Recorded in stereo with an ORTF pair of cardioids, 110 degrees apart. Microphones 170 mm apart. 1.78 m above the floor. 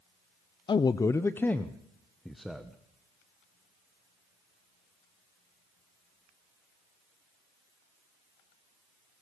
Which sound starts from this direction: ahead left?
A man speaking, at 0.7 s.